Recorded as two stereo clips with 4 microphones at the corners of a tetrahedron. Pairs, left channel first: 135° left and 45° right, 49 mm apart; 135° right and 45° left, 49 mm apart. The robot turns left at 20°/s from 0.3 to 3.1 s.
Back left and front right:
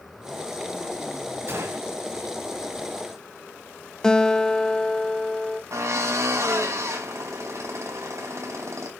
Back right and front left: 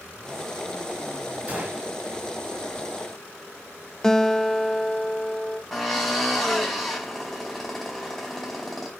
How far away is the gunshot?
About 4.5 m.